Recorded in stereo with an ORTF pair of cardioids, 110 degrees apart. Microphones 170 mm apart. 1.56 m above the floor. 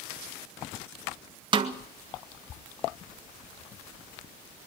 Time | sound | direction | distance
1.5 | a snare drum | 30° right | 1.9 m